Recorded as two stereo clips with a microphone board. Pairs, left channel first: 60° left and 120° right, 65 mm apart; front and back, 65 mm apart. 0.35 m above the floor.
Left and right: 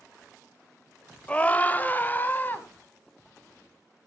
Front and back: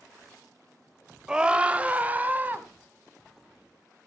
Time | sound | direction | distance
1.3 | a scream | 115° left | 1.2 m